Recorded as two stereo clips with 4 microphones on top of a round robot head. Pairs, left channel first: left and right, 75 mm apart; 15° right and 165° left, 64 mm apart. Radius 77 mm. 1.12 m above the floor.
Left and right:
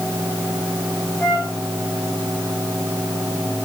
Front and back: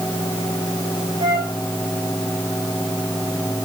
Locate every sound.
1.2 s a flute: 150° left, 5.5 m